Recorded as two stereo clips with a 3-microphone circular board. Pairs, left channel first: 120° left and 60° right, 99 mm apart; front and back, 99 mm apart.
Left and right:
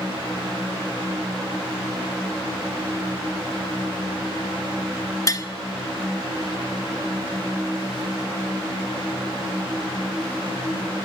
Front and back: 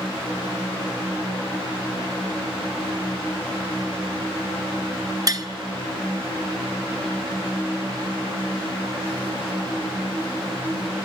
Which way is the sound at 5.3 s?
155° left.